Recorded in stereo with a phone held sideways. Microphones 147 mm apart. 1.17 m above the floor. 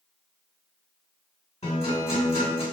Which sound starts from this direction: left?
A guitar, at 1.6 s.